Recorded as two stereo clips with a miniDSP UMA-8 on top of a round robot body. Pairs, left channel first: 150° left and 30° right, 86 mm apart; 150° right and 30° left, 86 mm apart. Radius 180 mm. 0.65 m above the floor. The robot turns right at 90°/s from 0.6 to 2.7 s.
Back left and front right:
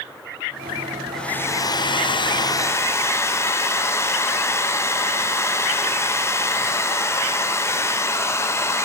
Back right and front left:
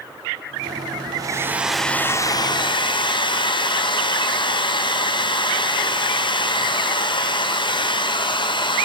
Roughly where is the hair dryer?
Ahead left.